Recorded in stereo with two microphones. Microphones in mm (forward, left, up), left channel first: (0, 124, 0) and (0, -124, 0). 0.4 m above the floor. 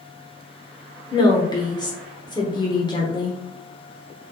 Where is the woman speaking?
20° left (ahead or behind), 0.9 m.